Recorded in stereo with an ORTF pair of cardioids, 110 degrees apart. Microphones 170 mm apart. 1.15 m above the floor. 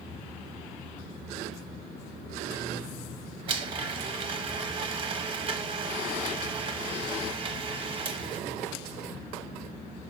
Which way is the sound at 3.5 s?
35° right.